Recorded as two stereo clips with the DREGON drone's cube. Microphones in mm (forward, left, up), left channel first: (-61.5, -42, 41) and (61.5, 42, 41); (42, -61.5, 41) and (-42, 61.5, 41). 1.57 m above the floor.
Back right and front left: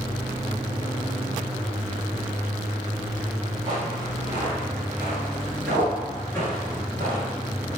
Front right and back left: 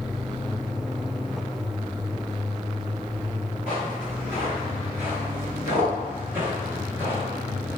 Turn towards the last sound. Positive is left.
turn(degrees=-170)